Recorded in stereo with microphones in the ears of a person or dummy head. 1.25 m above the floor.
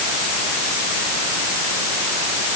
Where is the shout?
No shout in this recording.